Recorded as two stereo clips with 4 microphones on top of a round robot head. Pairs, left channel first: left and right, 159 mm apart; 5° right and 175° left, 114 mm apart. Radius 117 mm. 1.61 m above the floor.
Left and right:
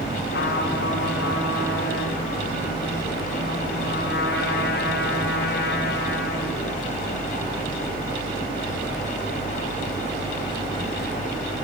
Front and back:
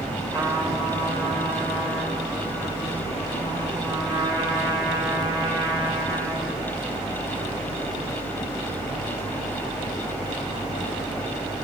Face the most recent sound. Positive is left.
turn(degrees=115)